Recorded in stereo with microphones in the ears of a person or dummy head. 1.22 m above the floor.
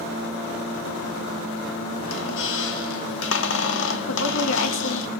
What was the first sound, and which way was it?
A squeak, 70° left (ahead or behind).